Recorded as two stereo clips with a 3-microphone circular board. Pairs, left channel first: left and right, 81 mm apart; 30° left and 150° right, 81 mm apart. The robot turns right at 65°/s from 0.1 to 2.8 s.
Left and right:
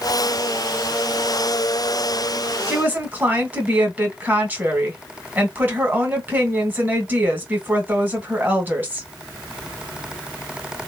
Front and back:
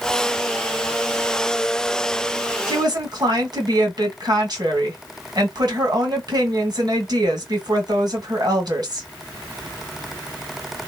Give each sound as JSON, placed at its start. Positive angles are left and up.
{"t": 2.7, "sound": "a woman speaking", "azimuth_deg": -160, "distance_m": 1.7}